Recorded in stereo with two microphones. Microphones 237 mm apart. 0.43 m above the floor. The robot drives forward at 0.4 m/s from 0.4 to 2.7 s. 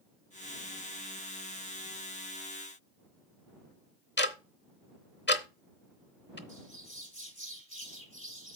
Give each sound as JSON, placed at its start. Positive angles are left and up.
{"t": 4.2, "sound": "ticking", "side_deg": 50, "distance_m": 0.9}
{"t": 6.5, "sound": "a bird", "side_deg": -35, "distance_m": 4.0}